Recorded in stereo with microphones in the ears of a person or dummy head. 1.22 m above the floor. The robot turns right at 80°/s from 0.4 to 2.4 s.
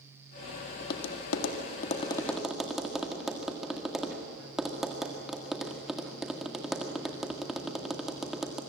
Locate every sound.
0.8 s tapping: 50° left (ahead or behind), 1.9 m; by 8.6 s centre (ahead or behind), 1.9 m